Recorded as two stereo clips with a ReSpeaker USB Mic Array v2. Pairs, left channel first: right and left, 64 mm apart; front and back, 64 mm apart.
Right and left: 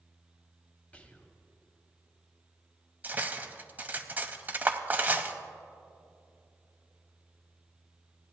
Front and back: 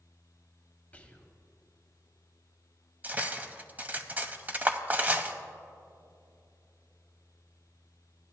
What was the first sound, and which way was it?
Whispering, 45° right.